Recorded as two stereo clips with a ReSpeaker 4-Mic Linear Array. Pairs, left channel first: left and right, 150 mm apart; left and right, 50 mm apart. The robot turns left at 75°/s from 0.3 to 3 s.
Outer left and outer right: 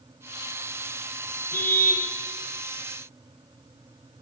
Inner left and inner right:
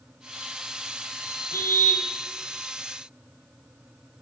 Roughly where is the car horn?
Left.